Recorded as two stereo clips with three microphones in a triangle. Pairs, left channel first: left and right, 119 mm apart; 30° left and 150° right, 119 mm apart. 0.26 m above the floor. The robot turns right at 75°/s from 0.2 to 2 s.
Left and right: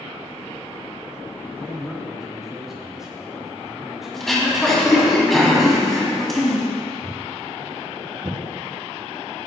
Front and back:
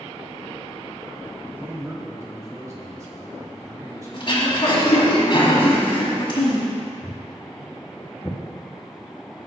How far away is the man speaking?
About 1.1 m.